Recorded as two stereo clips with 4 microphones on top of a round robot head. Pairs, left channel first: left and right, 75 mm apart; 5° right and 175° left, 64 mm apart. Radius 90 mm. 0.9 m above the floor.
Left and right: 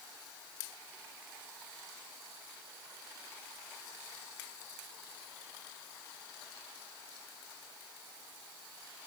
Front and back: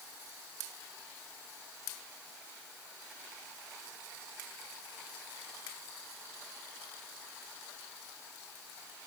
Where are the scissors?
I don't hear scissors.